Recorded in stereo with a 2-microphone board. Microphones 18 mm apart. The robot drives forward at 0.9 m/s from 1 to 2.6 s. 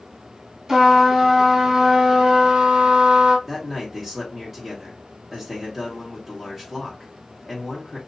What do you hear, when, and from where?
0.7 s a trumpet: 25° right (ahead or behind), 2.5 m; by 3.4 s 60° right (ahead or behind), 1.2 m
3.5 s a man speaking: centre (ahead or behind), 2.0 m